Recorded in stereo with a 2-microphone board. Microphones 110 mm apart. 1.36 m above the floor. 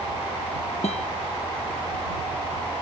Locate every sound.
0.8 s a guitar: 80° left